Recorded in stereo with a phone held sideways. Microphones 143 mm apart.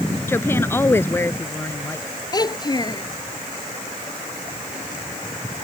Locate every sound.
0.3 s a woman speaking: 15° left (ahead or behind)
2.3 s a child speaking: 30° left (ahead or behind)